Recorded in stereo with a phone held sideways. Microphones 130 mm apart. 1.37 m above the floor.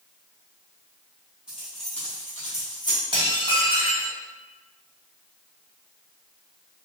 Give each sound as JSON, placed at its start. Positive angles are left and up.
{"t": 1.5, "sound": "keys jangling", "side_deg": -5, "distance_m": 1.2}
{"t": 3.1, "sound": "dishes clattering", "side_deg": -35, "distance_m": 1.2}